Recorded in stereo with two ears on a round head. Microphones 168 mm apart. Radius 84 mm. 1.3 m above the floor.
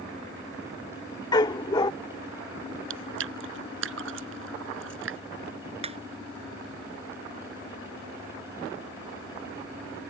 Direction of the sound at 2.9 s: 70° right (ahead or behind).